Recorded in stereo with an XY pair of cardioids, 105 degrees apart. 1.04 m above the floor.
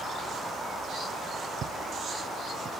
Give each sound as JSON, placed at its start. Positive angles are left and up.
{"t": 1.6, "sound": "footsteps", "azimuth_deg": -60}